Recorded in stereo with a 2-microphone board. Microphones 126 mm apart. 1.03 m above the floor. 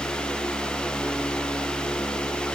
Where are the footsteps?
I don't hear footsteps.